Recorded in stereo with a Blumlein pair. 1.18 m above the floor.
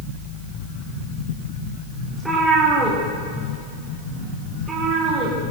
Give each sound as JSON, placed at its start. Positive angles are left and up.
{"t": 2.1, "sound": "a cat meowing", "azimuth_deg": -5, "distance_m": 5.0}